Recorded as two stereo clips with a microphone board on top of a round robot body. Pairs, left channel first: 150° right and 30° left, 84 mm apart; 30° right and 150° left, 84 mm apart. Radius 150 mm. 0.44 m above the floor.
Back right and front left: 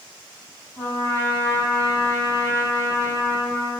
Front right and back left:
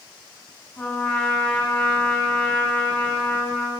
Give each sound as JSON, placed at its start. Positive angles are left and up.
{"t": 0.8, "sound": "a trumpet", "azimuth_deg": -100, "distance_m": 5.5}